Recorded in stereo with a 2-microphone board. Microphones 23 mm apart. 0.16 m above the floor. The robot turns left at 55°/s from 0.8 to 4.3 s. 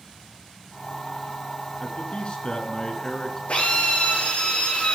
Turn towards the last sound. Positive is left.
turn(degrees=65)